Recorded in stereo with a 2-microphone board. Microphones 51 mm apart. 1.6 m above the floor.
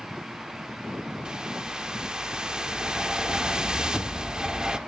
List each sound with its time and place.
1.2 s a whoosh: 15° right (ahead or behind), 0.9 m